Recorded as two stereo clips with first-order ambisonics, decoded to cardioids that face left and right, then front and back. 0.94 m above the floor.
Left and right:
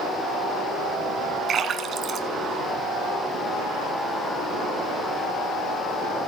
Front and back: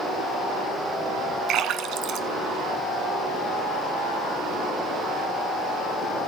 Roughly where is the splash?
Behind right.